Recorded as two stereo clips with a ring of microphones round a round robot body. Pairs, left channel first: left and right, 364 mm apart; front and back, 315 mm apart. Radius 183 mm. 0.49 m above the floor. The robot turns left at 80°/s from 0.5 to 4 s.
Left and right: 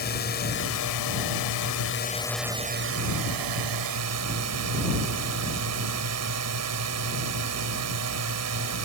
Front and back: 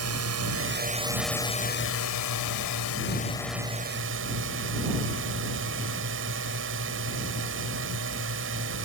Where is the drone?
150° left; by 8.8 s 130° right.